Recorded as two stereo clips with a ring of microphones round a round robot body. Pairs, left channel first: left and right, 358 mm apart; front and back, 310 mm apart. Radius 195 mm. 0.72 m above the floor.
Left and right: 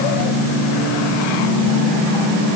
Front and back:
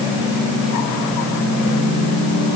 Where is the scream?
No scream in this recording.